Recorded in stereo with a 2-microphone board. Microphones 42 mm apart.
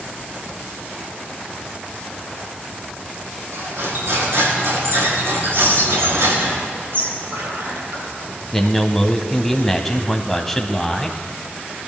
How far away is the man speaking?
About 1.0 m.